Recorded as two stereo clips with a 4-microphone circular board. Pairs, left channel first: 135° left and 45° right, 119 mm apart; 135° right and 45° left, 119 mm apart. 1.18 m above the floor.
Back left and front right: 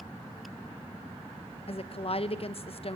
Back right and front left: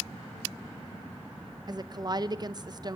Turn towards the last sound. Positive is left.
turn(degrees=100)